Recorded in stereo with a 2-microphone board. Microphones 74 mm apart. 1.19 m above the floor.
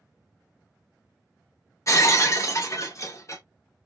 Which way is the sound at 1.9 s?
45° left (ahead or behind).